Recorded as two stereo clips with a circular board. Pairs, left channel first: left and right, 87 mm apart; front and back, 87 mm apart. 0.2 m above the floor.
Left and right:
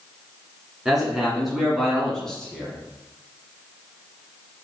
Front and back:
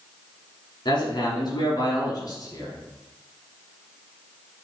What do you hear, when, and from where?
0.8 s a man speaking: 5° right, 2 m; by 2.8 s 20° left, 1.5 m